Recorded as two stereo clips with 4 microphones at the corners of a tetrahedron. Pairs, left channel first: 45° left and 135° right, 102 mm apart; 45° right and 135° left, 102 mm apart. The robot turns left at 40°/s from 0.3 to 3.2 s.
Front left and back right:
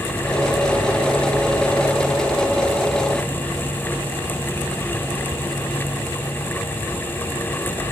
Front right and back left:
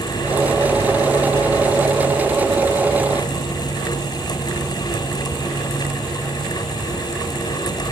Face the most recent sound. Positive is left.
No sound to turn to.